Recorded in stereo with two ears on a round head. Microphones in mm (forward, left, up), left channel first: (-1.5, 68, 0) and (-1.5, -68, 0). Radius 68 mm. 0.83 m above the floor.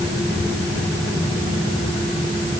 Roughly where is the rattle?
No rattle in this recording.